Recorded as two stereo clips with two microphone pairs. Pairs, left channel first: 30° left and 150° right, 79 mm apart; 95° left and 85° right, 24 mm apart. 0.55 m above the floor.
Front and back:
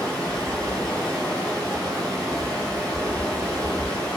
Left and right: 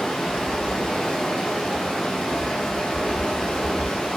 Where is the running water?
105° left, 1.5 m.